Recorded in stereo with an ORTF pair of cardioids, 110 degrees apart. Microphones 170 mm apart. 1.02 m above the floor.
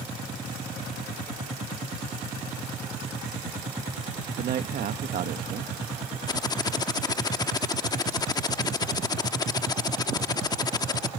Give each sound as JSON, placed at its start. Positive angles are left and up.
{"t": 4.4, "sound": "a man speaking", "azimuth_deg": -65}
{"t": 6.3, "sound": "typing on a keyboard", "azimuth_deg": 25}